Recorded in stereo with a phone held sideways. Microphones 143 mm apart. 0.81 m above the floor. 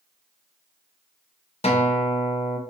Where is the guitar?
45° left (ahead or behind), 0.5 m.